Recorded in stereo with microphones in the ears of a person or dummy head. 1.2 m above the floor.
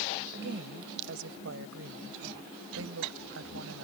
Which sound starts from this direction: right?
A woman speaking, at 0.3 s.